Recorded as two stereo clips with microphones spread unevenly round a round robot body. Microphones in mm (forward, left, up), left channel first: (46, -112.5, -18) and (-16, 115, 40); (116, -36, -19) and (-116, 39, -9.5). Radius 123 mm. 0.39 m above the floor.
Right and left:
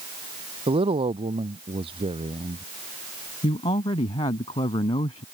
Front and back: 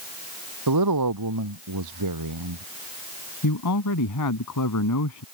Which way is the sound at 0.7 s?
175° left.